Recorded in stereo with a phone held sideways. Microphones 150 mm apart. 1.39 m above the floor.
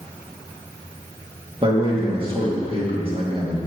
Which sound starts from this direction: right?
A man speaking, at 1.6 s.